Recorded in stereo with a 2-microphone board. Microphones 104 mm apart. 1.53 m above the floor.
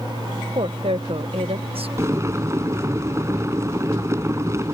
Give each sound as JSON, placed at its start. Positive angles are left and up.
{"t": 0.6, "sound": "a woman speaking", "side_deg": -60}
{"t": 2.0, "sound": "boiling", "side_deg": -25}